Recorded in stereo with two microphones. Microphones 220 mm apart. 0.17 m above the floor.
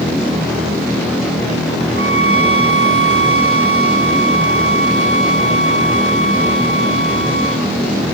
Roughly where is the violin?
Right.